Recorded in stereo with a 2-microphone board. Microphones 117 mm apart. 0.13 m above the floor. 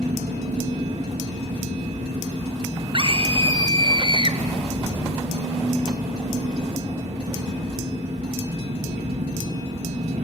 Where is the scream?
45° right (ahead or behind), 1.9 m.